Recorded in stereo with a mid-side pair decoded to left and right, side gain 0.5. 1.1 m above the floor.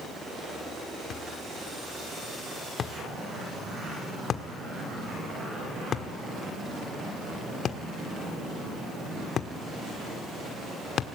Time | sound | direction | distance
1.1 | a thud | 55° left | 1.4 m